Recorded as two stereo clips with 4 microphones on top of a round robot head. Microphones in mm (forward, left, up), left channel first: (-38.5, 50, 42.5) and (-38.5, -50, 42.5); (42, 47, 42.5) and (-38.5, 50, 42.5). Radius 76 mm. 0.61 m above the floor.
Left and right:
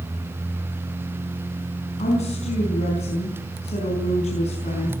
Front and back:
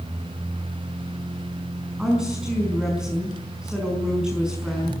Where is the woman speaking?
95° left, 5.5 m.